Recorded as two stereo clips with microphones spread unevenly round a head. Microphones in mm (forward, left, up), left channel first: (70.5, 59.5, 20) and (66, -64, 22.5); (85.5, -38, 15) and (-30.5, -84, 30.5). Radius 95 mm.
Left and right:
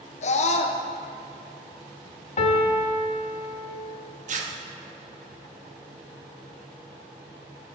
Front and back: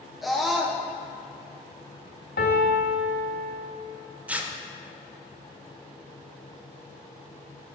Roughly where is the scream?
Left.